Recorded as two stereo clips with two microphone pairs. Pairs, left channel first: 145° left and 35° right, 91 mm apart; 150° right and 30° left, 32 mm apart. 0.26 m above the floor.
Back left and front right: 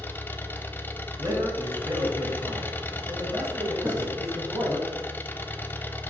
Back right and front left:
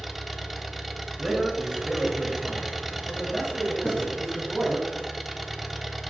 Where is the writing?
100° right, 2 m.